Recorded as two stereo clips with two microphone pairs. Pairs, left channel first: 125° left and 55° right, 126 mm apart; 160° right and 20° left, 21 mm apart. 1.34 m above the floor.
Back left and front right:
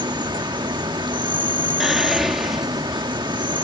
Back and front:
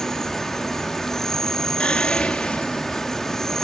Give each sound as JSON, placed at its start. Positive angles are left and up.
{"t": 0.0, "sound": "an insect", "azimuth_deg": -100}
{"t": 1.8, "sound": "whispering", "azimuth_deg": -140}